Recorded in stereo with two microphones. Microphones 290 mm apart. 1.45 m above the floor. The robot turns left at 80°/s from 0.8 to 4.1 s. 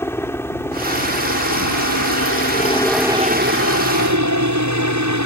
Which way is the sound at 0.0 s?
170° left.